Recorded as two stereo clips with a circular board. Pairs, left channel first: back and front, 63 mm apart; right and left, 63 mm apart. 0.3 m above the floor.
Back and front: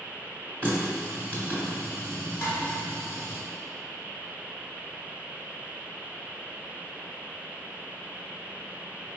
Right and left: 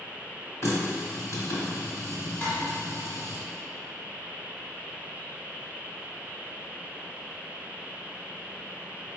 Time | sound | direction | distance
0.6 | a running tap | 115° right | 1.4 m
2.4 | dishes clattering | 150° right | 1.7 m